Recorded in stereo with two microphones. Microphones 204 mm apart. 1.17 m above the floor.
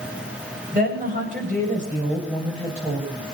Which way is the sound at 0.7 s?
40° right (ahead or behind).